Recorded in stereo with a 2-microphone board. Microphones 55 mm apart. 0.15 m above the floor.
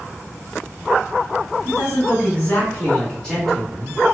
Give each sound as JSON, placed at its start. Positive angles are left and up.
{"t": 1.6, "sound": "a man speaking", "side_deg": 45, "distance_m": 1.5}